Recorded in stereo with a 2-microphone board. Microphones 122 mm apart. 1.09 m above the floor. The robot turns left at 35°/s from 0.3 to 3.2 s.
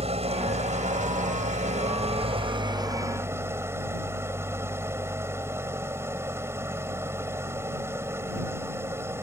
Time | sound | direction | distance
0.0 | an engine running | 60° right | ?